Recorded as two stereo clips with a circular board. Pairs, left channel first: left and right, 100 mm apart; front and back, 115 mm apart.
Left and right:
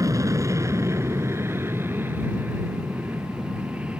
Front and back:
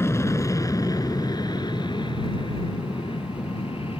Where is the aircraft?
55° right; by 4.0 s 15° right.